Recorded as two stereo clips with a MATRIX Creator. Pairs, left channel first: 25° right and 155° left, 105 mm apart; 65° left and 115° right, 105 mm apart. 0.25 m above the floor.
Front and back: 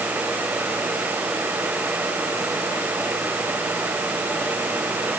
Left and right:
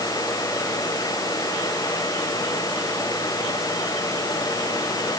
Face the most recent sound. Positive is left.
No sound to turn to.